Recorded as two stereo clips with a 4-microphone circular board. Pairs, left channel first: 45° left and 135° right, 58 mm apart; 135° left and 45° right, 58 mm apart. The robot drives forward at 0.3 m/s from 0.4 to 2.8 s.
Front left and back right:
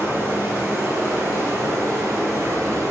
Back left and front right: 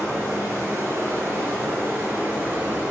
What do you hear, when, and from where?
0.0 s running water: 90° right, 1.9 m; by 2.9 s 110° right, 2 m